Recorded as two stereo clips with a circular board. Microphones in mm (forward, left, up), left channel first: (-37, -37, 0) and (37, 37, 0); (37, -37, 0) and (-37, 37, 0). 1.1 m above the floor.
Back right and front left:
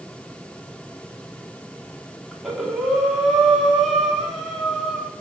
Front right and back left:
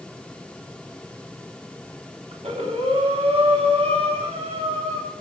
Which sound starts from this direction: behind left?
Breathing, at 2.3 s.